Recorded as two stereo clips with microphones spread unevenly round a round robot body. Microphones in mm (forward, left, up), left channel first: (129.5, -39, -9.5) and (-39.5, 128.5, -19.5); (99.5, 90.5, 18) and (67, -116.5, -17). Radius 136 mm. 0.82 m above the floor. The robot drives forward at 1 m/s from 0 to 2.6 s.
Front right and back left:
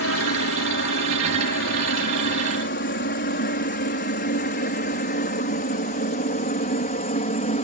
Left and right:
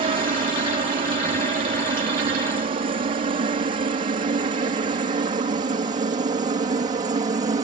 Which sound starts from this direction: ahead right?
A helicopter, at 0.0 s.